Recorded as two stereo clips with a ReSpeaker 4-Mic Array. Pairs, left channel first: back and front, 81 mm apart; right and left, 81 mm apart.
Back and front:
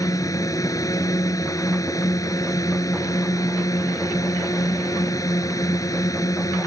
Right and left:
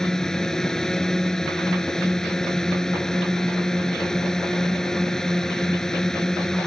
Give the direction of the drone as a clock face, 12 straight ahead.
6 o'clock.